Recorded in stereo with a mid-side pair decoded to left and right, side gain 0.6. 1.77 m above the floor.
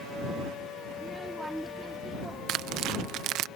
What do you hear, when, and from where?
0.9 s a child speaking: 10° right
2.5 s tearing paper: 65° right